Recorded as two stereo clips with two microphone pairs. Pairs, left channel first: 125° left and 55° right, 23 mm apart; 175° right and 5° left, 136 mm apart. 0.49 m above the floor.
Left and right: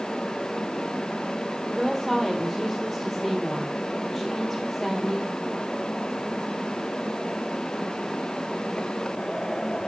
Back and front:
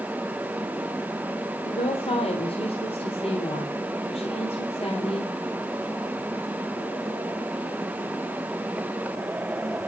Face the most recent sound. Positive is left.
turn(degrees=-150)